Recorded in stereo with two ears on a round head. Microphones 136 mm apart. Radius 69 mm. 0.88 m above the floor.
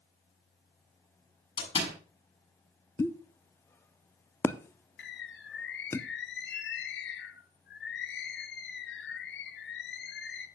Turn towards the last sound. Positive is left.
turn(degrees=80)